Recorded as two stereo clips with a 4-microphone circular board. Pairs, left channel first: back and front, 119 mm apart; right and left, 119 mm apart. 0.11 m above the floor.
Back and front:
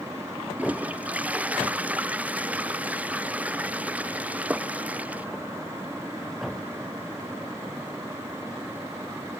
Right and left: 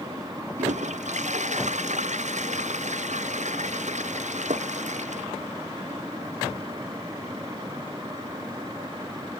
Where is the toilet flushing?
80° left.